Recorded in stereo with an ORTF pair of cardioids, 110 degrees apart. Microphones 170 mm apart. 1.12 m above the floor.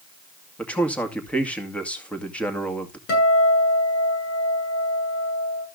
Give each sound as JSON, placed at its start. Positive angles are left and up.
{"t": 0.6, "sound": "a man speaking", "azimuth_deg": 10, "distance_m": 2.0}
{"t": 3.1, "sound": "a guitar", "azimuth_deg": 70, "distance_m": 7.5}